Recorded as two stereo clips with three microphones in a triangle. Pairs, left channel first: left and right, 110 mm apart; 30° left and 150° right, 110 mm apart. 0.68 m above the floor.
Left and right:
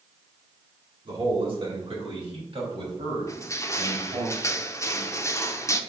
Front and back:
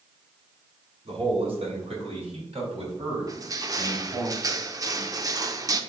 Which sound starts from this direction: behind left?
Crushing, at 3.3 s.